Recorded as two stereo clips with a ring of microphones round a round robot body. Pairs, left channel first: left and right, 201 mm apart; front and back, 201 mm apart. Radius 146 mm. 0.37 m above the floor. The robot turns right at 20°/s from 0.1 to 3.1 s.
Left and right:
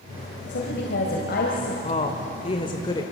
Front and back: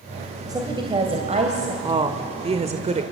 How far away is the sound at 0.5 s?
About 2.5 m.